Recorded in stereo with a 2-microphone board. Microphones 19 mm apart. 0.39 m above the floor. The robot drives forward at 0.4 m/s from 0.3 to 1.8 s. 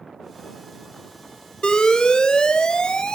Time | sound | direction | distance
1.6 | an alarm | 45° left (ahead or behind) | 1.1 m